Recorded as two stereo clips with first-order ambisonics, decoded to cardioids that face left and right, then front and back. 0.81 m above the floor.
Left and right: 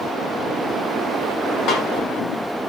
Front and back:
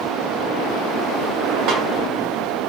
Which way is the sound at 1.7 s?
135° left.